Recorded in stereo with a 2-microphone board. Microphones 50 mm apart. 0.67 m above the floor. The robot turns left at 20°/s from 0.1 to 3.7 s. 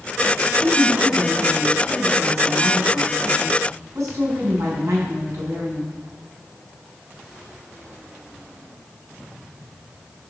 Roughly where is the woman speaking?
Ahead right.